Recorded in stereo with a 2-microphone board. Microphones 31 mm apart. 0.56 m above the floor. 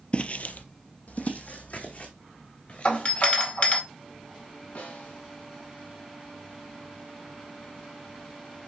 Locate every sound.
0.1 s footsteps: 40° left (ahead or behind), 0.7 m; by 3.3 s 55° left (ahead or behind), 4 m
2.9 s a doorbell: 50° left (ahead or behind), 2 m
4.8 s a snare drum: 80° left, 4 m